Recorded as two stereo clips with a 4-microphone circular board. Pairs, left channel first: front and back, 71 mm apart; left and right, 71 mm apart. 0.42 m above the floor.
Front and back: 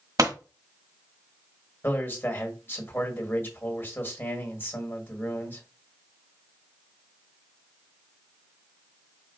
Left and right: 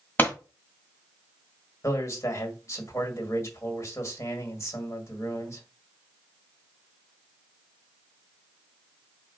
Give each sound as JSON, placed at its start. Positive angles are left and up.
{"t": 0.2, "sound": "a pop", "azimuth_deg": 150, "distance_m": 1.4}
{"t": 1.8, "sound": "a man speaking", "azimuth_deg": 55, "distance_m": 1.6}